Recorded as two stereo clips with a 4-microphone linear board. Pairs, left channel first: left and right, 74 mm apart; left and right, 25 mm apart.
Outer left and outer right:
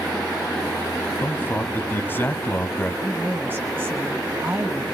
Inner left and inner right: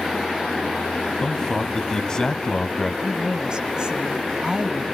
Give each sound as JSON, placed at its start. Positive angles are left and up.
{"t": 1.2, "sound": "a man speaking", "side_deg": 25, "distance_m": 1.1}
{"t": 3.0, "sound": "a woman speaking", "side_deg": -25, "distance_m": 1.5}